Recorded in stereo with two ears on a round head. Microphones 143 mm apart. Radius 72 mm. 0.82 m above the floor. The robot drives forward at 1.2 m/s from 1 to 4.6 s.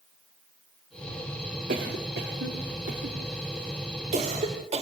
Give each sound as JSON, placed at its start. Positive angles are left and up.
{"t": 1.7, "sound": "a cough", "side_deg": -55, "distance_m": 2.5}